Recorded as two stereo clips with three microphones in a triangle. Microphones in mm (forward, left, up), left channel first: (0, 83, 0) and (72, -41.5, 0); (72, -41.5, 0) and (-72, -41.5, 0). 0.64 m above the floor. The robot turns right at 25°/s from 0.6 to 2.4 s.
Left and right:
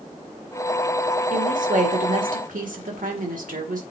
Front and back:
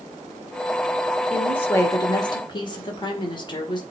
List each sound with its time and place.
1.3 s a woman speaking: 80° right, 1.9 m; by 3.8 s 55° right, 1.9 m